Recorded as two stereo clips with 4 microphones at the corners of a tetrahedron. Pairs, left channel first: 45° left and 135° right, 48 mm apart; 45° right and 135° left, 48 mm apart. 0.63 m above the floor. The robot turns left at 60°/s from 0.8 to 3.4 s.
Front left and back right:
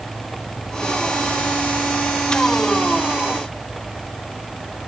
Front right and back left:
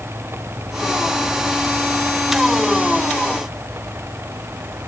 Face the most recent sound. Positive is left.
No sound to turn to.